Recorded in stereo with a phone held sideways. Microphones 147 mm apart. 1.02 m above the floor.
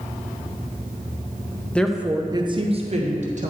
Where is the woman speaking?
10° left (ahead or behind), 0.5 m; by 3.5 s 55° right (ahead or behind), 1.1 m.